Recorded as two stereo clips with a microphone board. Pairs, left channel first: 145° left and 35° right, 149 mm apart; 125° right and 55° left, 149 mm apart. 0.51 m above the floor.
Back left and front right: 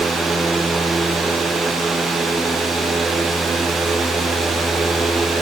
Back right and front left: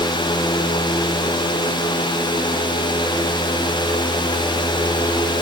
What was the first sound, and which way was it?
Only background noise.